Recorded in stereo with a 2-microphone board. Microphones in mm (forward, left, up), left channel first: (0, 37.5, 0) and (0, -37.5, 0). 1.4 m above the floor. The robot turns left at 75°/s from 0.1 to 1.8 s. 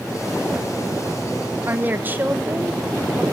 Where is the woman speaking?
35° right (ahead or behind), 0.7 m; by 3.2 s 25° right (ahead or behind), 0.7 m.